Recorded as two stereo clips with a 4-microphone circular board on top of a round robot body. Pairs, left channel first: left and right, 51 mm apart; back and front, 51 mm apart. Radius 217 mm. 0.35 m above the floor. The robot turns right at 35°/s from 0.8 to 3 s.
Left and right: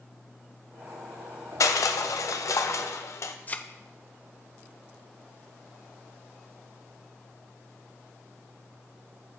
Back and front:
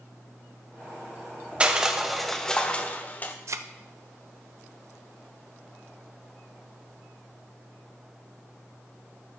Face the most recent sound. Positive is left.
turn(degrees=30)